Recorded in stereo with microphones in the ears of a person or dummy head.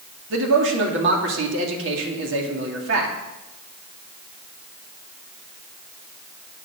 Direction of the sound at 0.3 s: 70° right (ahead or behind).